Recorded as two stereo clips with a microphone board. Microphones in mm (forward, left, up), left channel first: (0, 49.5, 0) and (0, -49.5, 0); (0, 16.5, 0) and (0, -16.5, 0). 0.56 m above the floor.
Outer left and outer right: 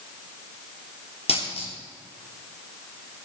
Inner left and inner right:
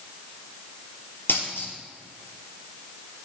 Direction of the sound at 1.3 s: 85° left.